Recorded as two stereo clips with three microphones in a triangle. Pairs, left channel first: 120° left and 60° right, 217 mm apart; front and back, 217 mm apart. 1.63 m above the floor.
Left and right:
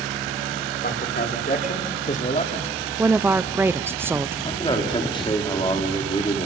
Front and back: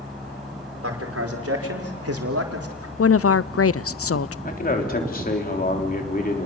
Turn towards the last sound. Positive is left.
turn(degrees=50)